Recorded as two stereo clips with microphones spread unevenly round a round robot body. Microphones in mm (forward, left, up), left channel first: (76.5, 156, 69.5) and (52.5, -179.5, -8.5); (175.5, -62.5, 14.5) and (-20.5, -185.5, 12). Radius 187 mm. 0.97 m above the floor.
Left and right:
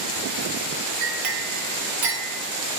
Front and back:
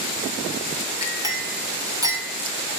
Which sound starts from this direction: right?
A clink, at 1.0 s.